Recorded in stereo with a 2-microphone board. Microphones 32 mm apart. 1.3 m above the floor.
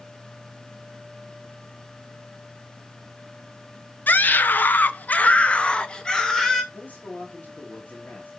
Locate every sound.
4.1 s a scream: 65° left (ahead or behind), 0.8 m; by 6.6 s 15° left (ahead or behind), 1.2 m
6.7 s a man speaking: 60° left (ahead or behind), 2 m